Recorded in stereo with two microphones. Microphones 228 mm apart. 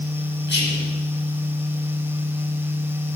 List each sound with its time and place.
0.5 s whispering: 55° left (ahead or behind), 3 m